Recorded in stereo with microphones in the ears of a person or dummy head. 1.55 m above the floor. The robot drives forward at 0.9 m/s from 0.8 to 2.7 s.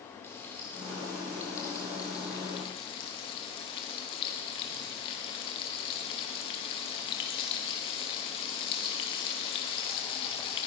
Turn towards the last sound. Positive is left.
turn(degrees=30)  # may be behind; listen again after turning